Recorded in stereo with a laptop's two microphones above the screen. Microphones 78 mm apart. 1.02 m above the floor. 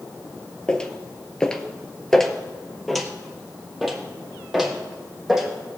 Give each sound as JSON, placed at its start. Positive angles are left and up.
{"t": 0.7, "sound": "footsteps", "side_deg": 15, "distance_m": 1.1}